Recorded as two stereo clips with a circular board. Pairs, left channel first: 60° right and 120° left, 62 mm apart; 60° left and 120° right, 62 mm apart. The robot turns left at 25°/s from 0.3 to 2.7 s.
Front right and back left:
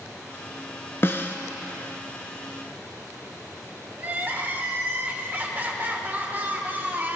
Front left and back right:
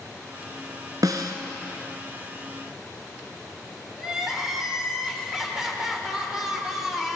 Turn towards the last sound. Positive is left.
turn(degrees=160)